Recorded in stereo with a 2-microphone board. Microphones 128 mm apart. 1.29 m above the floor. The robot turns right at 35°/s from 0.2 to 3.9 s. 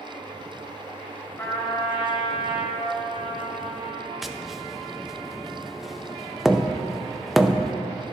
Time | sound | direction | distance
1.4 | a trumpet | 25° left | 2 m
4.2 | tapping | centre (ahead or behind) | 0.5 m